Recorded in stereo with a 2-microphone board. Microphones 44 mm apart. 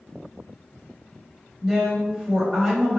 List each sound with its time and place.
1.6 s a woman speaking: 15° right (ahead or behind), 1.2 m